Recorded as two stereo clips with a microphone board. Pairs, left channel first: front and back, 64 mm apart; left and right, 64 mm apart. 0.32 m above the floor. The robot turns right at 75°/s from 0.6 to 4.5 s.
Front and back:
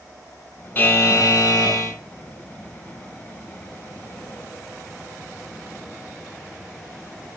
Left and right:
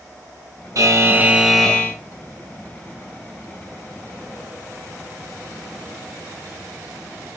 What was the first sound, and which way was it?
A buzzer, 60° right.